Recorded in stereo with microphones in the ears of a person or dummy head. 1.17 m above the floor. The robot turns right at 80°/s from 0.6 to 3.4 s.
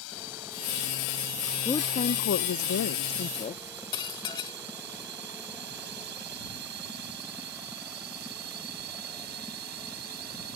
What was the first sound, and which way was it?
A drone, 75° left (ahead or behind).